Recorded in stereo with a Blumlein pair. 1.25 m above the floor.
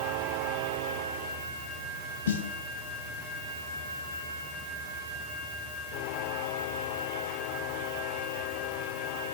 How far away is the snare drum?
About 2 m.